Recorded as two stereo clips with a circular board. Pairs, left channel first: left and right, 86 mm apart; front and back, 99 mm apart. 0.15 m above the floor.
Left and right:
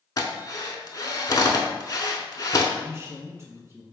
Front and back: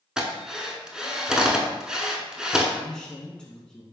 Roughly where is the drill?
Left.